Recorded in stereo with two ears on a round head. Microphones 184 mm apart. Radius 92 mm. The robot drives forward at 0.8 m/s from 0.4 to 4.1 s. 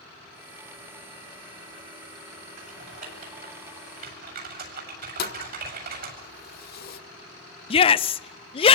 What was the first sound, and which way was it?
Typing on a keyboard, 40° right (ahead or behind).